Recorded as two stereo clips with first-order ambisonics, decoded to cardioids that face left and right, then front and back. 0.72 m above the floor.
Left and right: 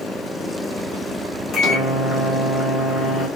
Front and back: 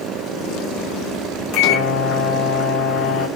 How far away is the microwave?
About 0.8 m.